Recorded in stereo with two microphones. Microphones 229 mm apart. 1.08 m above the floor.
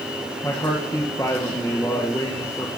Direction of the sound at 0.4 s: 15° left (ahead or behind).